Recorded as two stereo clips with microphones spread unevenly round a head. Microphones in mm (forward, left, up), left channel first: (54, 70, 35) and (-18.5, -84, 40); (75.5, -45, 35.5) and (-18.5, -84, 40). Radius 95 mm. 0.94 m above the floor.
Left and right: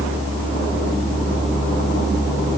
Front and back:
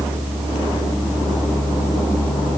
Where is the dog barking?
I don't hear a dog barking.